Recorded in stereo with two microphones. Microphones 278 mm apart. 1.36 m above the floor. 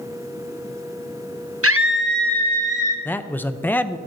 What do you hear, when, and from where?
1.6 s a scream: 50° right (ahead or behind), 0.9 m; by 3.0 s 25° right (ahead or behind), 2.0 m
3.0 s a man speaking: 5° left (ahead or behind), 0.5 m